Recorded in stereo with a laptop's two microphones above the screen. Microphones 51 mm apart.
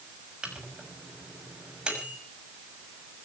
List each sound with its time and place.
0.4 s a microwave: 20° right (ahead or behind), 6 m